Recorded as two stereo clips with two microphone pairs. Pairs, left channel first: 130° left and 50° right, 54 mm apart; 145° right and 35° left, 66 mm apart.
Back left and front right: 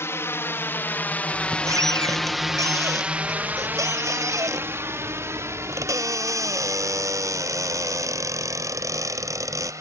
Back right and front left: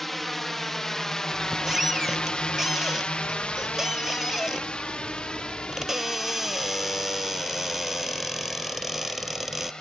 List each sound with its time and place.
0.0 s a drone: 130° left; by 9.8 s 65° right
1.3 s a squeak: 50° right